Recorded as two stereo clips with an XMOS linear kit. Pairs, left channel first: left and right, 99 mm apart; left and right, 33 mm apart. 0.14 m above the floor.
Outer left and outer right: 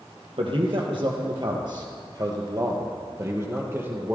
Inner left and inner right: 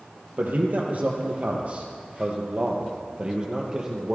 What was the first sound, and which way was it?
A man speaking, 60° right (ahead or behind).